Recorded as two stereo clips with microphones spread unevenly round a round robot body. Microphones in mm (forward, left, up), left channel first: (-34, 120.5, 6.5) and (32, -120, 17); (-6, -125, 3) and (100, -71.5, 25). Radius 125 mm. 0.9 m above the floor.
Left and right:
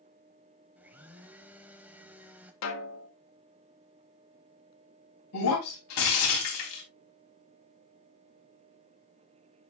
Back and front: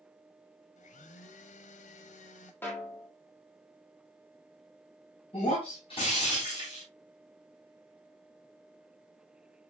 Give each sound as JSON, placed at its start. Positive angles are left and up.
{"t": 0.8, "sound": "a blender", "azimuth_deg": -155, "distance_m": 1.0}
{"t": 2.6, "sound": "a snare drum", "azimuth_deg": 130, "distance_m": 1.7}
{"t": 5.3, "sound": "breaking glass", "azimuth_deg": 140, "distance_m": 3.5}